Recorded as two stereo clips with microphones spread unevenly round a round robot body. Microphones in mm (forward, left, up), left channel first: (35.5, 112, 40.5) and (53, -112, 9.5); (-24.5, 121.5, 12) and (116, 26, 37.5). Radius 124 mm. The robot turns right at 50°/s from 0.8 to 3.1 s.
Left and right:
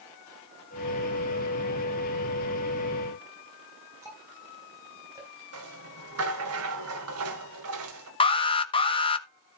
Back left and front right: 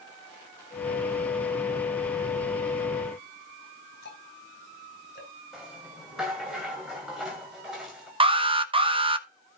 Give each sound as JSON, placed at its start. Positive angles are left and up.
{"t": 4.0, "sound": "ticking", "azimuth_deg": -165, "distance_m": 4.5}
{"t": 5.5, "sound": "a rattle", "azimuth_deg": -120, "distance_m": 2.0}
{"t": 8.2, "sound": "an alarm", "azimuth_deg": 25, "distance_m": 1.5}